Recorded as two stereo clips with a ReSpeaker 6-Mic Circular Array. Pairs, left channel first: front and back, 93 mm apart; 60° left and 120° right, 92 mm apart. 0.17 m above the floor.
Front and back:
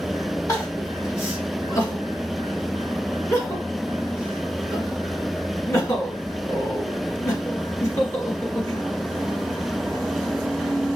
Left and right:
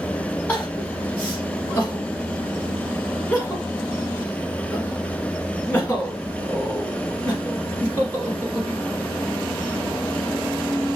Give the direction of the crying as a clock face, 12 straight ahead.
12 o'clock.